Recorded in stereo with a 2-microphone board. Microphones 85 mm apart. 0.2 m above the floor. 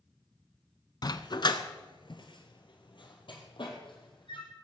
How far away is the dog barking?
About 0.6 m.